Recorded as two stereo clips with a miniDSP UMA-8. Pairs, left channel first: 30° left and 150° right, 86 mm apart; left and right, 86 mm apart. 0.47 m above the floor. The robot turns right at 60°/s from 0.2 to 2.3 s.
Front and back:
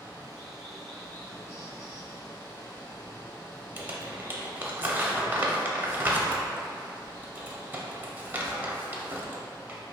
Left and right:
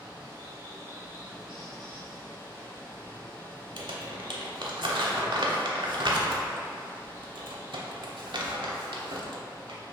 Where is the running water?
90° right, 1.5 m; by 9.9 s 35° left, 1.5 m.